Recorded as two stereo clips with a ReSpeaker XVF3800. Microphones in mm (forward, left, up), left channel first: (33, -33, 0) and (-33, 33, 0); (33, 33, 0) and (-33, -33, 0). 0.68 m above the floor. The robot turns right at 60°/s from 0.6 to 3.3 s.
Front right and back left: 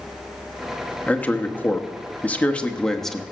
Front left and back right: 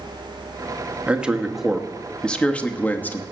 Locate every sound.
1.1 s a man speaking: 85° right, 0.9 m; by 3.2 s 40° left, 0.9 m